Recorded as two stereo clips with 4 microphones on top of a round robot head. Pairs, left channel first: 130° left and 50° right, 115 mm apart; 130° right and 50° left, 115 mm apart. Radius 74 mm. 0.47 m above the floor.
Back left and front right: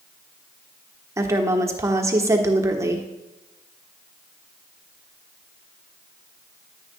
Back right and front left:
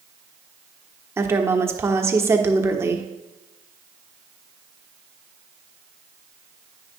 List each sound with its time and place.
1.2 s a woman speaking: 5° right, 1.2 m